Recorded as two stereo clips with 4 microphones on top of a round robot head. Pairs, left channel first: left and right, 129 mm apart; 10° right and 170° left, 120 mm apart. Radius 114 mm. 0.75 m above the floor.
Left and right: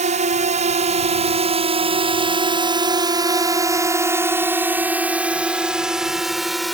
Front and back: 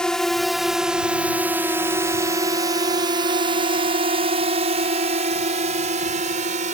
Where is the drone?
95° right; by 6.8 s straight behind.